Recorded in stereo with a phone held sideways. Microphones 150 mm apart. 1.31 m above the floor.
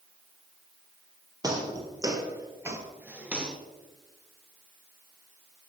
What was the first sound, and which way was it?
Footsteps, 25° right (ahead or behind).